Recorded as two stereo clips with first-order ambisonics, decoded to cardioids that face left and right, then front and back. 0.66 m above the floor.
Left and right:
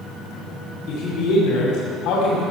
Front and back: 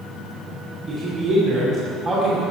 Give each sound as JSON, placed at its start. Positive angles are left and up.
{"t": 0.9, "sound": "a man speaking", "azimuth_deg": 120, "distance_m": 2.5}